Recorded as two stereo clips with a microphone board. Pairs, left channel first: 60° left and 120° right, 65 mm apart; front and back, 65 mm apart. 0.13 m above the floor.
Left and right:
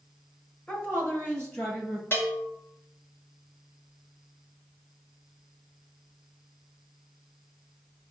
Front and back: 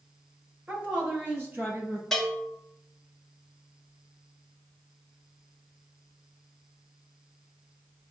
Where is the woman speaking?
115° left, 2 m; by 2.0 s 120° left, 3.5 m.